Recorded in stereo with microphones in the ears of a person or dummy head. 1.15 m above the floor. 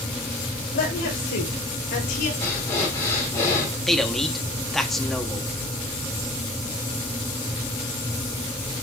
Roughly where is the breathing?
Centre.